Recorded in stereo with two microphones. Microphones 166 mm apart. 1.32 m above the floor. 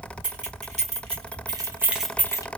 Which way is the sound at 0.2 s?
50° right (ahead or behind).